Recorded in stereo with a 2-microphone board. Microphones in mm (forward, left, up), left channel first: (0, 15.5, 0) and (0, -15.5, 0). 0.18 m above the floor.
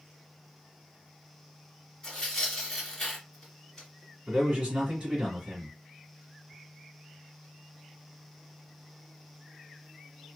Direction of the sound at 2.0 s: 15° left (ahead or behind).